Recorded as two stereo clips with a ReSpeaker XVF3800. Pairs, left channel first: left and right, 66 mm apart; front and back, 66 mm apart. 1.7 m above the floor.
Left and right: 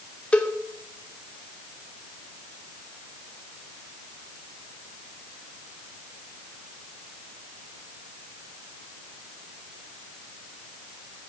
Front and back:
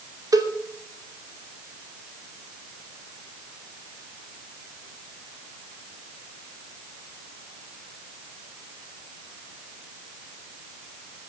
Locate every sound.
0.3 s a cowbell: 160° left, 2.5 m